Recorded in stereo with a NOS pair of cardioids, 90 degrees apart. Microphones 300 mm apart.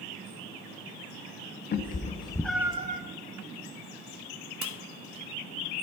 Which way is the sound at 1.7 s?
35° left.